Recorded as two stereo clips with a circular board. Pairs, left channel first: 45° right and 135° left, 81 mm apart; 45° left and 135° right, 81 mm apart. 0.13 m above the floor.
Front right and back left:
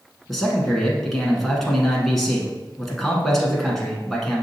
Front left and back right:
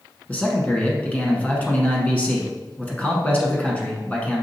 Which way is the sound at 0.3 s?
35° left.